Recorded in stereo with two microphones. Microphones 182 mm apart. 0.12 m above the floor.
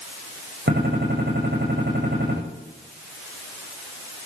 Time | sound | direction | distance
0.7 | a gunshot | 75° right (ahead or behind) | 7 m